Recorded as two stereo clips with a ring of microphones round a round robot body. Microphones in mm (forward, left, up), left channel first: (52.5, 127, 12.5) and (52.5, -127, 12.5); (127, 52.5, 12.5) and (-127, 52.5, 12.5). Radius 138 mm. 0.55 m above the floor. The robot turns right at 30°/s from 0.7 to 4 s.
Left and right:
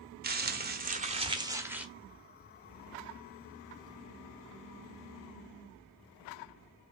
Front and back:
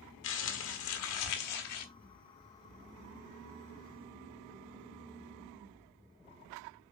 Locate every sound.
0.2 s crumpling: 40° right, 1.6 m; by 1.9 s 5° right, 1.6 m